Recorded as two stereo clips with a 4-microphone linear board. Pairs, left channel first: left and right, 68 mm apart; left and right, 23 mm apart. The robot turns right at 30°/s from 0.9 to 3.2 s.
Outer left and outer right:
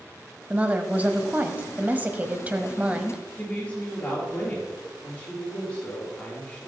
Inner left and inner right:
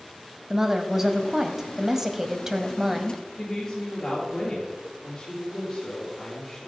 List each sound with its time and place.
0.5 s a woman speaking: 20° right (ahead or behind), 1.0 m; by 3.2 s 15° right (ahead or behind), 1.0 m
3.4 s a woman speaking: 25° left (ahead or behind), 5 m